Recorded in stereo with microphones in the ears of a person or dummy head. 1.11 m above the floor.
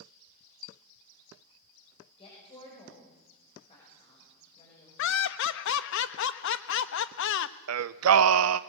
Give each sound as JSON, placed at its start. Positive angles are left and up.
{"t": 2.2, "sound": "a woman speaking", "side_deg": 25, "distance_m": 6.5}
{"t": 5.0, "sound": "laughter", "side_deg": 65, "distance_m": 0.9}
{"t": 7.7, "sound": "singing", "side_deg": -75, "distance_m": 0.7}